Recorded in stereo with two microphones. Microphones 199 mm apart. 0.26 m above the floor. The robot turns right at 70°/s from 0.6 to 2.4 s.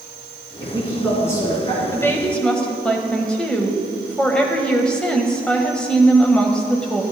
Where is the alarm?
I don't hear an alarm.